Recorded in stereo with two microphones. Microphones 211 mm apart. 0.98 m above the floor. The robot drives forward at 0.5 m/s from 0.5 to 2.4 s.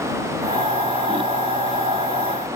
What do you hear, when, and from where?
Only background noise.